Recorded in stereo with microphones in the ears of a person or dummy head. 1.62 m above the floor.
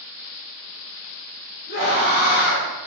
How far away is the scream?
About 3 m.